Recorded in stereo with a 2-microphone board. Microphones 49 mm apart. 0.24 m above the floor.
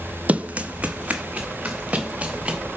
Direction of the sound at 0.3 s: 30° right (ahead or behind).